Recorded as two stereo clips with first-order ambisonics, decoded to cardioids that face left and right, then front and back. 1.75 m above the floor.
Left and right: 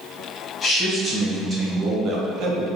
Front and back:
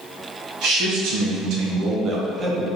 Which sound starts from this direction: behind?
A man speaking, at 0.6 s.